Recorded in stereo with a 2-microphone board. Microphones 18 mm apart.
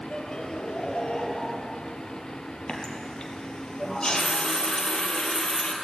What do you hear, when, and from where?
0.1 s laughter: 60° left (ahead or behind), 3.5 m
2.7 s a running tap: 50° left (ahead or behind), 3.5 m